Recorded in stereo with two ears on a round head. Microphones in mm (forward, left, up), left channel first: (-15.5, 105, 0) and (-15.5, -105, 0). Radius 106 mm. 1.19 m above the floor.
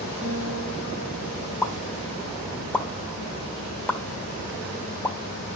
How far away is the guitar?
About 6 m.